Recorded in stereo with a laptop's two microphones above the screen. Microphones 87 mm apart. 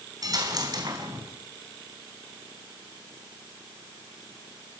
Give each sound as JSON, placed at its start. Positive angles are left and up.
{"t": 0.2, "sound": "a dropped coin", "side_deg": -45, "distance_m": 4.0}